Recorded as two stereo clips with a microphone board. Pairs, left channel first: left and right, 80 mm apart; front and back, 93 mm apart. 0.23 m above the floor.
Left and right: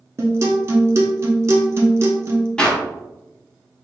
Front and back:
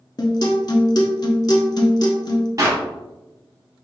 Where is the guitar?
40° right, 0.7 m.